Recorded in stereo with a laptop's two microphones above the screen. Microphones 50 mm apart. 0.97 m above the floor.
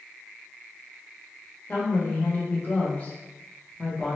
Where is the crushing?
No crushing in this recording.